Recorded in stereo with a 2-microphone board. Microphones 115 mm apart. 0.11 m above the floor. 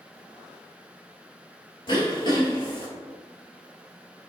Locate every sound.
1.9 s throat clearing: 45° left (ahead or behind), 1.0 m